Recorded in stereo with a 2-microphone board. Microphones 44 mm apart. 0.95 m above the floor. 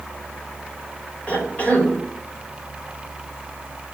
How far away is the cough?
About 3.5 m.